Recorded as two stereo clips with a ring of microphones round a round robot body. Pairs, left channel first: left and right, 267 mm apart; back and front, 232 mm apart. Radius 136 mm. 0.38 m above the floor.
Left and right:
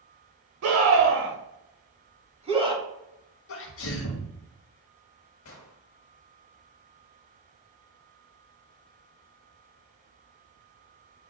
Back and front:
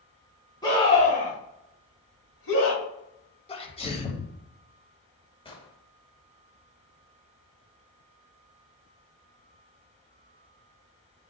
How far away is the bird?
I don't hear a bird.